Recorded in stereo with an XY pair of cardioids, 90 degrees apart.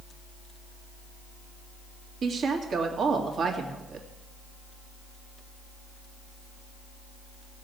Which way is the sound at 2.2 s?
65° right.